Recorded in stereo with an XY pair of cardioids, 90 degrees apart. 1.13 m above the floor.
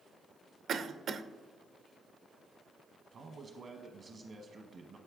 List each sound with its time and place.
0.7 s a cough: 65° right, 0.6 m
3.1 s a man speaking: 60° right, 1.0 m